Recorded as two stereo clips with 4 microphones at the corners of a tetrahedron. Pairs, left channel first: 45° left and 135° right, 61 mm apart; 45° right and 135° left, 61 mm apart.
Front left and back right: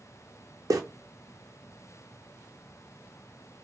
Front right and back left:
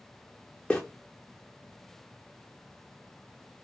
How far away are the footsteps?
About 0.6 m.